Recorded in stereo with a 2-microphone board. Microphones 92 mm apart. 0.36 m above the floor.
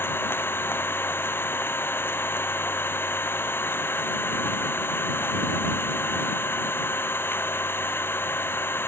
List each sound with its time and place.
0.0 s an engine running: 25° left (ahead or behind)